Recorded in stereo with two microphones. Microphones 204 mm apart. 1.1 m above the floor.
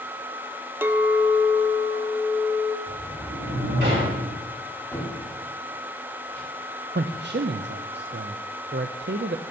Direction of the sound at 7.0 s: 55° right (ahead or behind).